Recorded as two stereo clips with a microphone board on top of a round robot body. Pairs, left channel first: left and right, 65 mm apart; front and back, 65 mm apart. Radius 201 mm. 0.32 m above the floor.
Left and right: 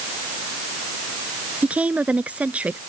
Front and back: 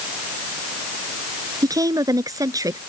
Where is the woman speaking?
160° right.